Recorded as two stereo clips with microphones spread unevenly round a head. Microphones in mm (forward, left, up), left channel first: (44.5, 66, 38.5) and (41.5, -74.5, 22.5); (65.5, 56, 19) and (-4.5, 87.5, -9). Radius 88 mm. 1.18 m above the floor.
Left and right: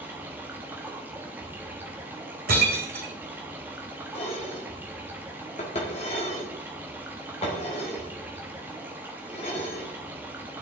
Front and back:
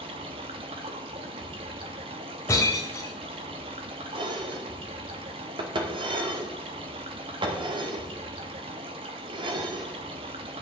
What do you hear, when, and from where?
0.0 s running water: 175° right, 0.8 m
2.5 s breaking glass: 85° right, 3 m
4.1 s dishes clattering: 145° left, 1.6 m